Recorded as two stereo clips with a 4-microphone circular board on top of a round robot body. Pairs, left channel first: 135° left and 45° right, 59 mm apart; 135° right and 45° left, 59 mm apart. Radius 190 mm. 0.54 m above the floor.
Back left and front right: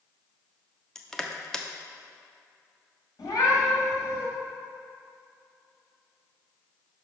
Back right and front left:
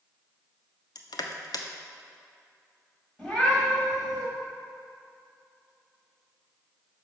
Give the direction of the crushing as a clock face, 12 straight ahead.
5 o'clock.